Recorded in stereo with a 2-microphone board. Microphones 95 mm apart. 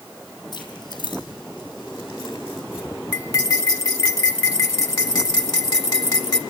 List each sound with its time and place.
0.5 s keys jangling: 55° left (ahead or behind), 4.5 m; by 2.9 s 70° left (ahead or behind), 4 m
3.1 s cutlery clinking: 45° left (ahead or behind), 1.4 m